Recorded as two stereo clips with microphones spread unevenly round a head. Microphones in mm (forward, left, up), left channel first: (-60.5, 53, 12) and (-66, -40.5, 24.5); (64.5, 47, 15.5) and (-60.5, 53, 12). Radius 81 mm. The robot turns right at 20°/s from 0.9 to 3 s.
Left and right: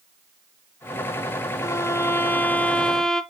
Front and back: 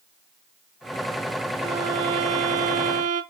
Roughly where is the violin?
Behind left.